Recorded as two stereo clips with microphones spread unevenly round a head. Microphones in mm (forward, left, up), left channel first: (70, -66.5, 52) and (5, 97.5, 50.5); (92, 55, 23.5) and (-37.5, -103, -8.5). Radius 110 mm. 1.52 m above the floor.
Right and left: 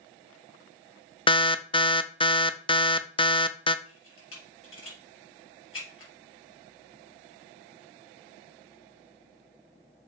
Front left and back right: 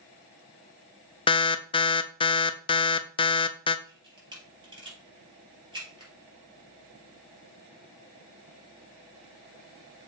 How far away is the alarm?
About 0.6 m.